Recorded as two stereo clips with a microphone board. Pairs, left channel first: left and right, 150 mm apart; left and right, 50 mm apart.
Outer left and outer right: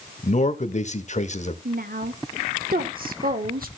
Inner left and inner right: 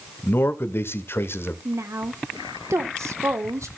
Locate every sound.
0.2 s a man speaking: 50° left (ahead or behind), 1.2 m
1.6 s a woman speaking: 75° right (ahead or behind), 1.4 m